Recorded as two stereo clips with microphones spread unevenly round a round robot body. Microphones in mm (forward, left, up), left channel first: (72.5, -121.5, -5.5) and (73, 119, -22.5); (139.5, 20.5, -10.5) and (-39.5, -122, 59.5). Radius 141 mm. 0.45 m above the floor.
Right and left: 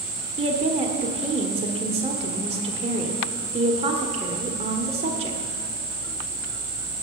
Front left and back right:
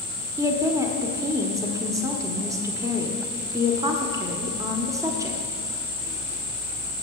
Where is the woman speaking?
125° left, 1.2 m.